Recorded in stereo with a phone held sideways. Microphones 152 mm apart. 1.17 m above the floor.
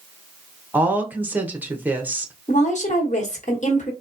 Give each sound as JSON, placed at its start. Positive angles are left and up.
{"t": 0.7, "sound": "a woman speaking", "side_deg": -10, "distance_m": 0.6}
{"t": 2.5, "sound": "a woman speaking", "side_deg": 50, "distance_m": 1.0}